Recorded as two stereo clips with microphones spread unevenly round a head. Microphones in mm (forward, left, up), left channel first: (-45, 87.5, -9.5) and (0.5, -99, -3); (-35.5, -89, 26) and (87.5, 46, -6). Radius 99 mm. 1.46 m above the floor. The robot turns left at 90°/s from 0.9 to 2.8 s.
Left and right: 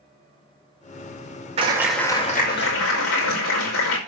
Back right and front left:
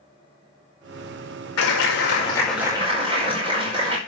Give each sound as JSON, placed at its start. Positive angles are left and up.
{"t": 1.6, "sound": "a clap", "azimuth_deg": -135, "distance_m": 5.5}